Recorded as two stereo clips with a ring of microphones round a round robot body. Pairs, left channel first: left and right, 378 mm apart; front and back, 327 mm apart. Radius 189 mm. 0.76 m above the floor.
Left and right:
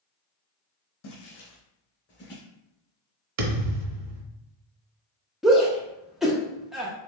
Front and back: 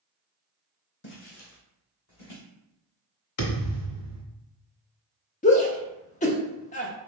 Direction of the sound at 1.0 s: 55° left.